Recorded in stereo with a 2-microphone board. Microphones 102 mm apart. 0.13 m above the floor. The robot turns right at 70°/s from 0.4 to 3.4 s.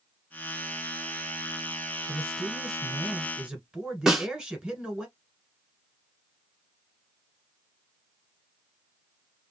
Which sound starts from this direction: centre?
A snare drum, at 4.1 s.